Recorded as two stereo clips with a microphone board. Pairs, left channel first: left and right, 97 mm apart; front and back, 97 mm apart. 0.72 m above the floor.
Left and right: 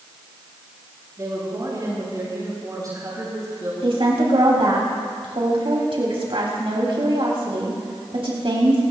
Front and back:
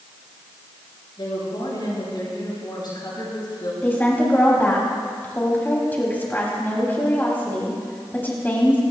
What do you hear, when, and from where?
1.2 s a woman speaking: 40° right, 8 m
3.8 s a woman speaking: 70° right, 3.5 m